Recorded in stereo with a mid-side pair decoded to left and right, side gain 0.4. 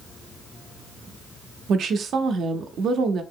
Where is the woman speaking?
70° right, 0.5 m.